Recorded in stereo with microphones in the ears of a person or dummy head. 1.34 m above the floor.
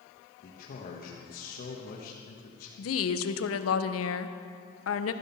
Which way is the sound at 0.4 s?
50° left (ahead or behind).